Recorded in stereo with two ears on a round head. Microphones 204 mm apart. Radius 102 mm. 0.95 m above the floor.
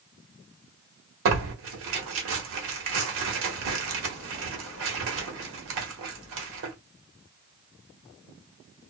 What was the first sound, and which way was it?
Tearing paper, 65° right (ahead or behind).